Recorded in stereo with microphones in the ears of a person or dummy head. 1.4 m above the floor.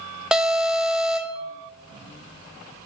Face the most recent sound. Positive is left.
turn(degrees=-5)  # may be behind; listen again after turning